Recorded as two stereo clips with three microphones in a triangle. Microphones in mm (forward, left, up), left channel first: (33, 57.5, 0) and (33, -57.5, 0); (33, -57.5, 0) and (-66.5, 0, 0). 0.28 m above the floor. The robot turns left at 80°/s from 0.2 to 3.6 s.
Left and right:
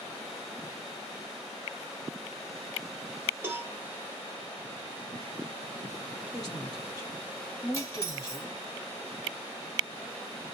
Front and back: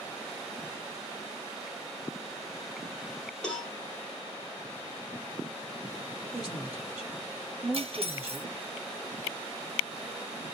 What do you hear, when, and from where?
3.4 s a cowbell: 95° right, 1.0 m; by 3.7 s 110° right, 1.0 m
6.3 s a woman speaking: 70° left, 1.7 m
7.7 s cutlery clinking: 145° left, 1.0 m